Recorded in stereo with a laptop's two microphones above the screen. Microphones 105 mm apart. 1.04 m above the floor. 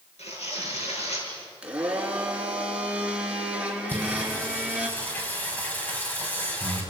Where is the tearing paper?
85° left, 7.5 m.